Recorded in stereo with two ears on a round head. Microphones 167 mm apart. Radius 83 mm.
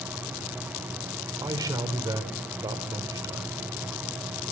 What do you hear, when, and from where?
1.4 s a man speaking: 20° right (ahead or behind), 3 m